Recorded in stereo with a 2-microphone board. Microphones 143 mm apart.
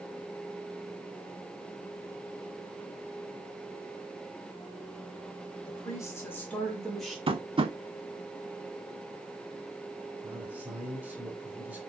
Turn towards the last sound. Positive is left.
turn(degrees=-10)  # may be behind; listen again after turning